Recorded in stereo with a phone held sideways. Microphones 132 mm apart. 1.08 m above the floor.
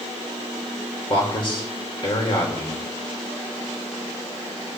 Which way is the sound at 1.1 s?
40° left (ahead or behind).